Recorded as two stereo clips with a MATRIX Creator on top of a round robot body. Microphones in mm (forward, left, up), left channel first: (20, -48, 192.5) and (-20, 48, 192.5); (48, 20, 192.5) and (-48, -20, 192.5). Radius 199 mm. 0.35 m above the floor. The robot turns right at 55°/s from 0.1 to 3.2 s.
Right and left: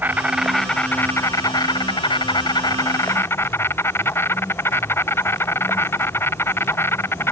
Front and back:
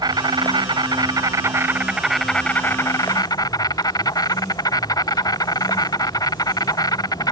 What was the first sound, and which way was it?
An insect, straight behind.